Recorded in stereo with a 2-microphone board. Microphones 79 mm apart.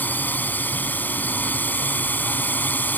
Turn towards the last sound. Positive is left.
turn(degrees=25)  # may be behind; listen again after turning